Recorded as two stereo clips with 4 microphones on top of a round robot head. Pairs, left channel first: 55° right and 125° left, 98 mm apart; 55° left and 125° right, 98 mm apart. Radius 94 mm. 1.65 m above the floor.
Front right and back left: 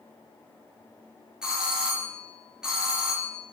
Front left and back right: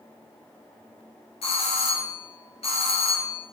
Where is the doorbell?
45° left, 2.5 m.